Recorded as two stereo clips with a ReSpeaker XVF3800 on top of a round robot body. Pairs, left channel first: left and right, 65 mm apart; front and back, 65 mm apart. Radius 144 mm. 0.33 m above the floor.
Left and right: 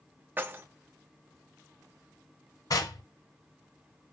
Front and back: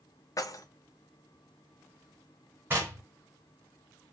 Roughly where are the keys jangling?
Ahead right.